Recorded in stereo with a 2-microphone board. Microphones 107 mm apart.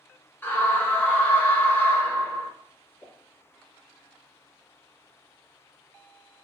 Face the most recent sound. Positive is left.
turn(degrees=20)  # may be behind; listen again after turning